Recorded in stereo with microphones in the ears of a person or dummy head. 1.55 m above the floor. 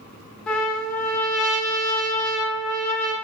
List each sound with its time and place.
0.5 s a trumpet: 5° left (ahead or behind), 0.8 m